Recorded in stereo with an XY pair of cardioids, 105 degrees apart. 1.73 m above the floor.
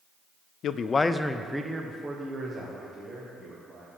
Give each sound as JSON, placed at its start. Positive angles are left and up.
{"t": 0.6, "sound": "a man speaking", "azimuth_deg": 65, "distance_m": 0.5}